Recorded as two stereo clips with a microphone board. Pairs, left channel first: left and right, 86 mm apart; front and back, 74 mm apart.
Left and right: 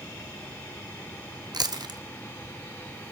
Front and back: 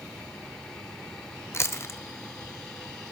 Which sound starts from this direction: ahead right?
Chewing, at 1.5 s.